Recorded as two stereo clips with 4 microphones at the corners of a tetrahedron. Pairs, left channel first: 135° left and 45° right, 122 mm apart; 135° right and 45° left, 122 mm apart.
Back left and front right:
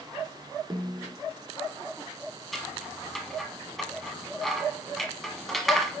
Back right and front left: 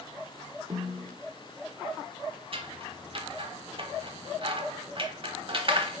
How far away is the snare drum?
About 1.6 m.